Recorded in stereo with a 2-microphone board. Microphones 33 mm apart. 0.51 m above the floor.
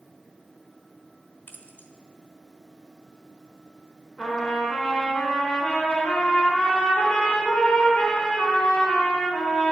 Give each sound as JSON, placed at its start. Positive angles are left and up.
{"t": 1.5, "sound": "keys jangling", "side_deg": 70, "distance_m": 1.5}
{"t": 4.2, "sound": "a trumpet", "side_deg": 25, "distance_m": 4.0}